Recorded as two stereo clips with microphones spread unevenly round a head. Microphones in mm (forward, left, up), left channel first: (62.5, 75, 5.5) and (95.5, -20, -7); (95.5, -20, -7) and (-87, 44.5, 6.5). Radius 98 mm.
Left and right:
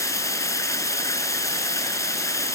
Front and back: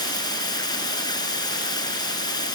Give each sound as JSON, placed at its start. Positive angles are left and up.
{"t": 0.0, "sound": "running water", "azimuth_deg": 50}